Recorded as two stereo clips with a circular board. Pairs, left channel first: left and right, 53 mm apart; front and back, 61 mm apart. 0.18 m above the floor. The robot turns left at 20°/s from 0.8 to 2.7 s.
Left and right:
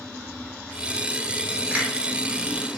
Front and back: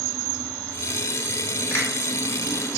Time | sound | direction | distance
1.7 | a finger snap | 30° right | 1.4 m